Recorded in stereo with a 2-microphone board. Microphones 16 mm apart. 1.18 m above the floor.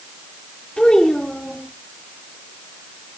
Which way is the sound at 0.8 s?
85° left.